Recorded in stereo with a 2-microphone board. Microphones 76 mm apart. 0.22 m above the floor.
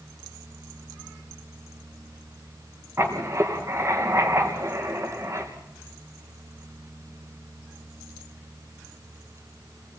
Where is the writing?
35° right (ahead or behind), 3.5 m.